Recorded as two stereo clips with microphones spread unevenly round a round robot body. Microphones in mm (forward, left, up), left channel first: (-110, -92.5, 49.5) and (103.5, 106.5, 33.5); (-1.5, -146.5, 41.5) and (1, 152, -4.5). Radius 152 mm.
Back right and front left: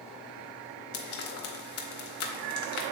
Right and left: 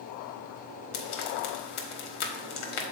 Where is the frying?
95° right, 1.2 m.